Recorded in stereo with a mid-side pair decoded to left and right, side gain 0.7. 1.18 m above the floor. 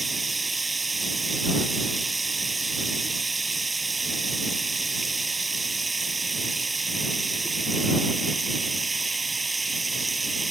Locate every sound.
0.0 s running water: 15° right